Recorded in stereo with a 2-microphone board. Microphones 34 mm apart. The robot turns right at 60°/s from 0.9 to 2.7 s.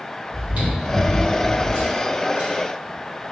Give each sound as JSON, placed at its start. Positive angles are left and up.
{"t": 0.3, "sound": "chewing", "side_deg": -50, "distance_m": 2.0}